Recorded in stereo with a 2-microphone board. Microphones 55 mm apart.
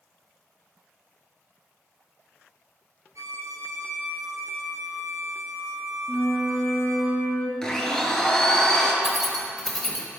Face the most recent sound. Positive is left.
turn(degrees=5)  # may be behind; listen again after turning